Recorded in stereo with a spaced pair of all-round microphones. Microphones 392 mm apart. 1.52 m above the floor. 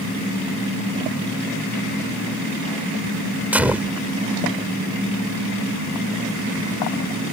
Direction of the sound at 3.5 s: 5° right (ahead or behind).